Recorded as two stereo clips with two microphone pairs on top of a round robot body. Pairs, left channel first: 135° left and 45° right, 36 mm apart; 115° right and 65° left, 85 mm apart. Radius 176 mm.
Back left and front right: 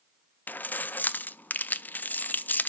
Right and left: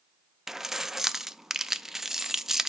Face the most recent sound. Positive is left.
turn(degrees=145)